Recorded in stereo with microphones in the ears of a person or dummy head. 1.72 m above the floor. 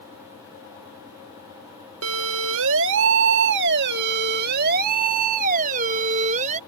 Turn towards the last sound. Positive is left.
turn(degrees=-40)  # may be behind; listen again after turning